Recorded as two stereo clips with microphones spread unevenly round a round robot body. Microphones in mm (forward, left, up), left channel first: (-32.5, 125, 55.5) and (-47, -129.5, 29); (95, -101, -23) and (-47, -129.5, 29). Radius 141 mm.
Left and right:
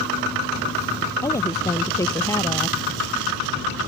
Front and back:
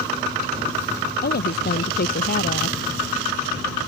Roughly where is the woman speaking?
Ahead.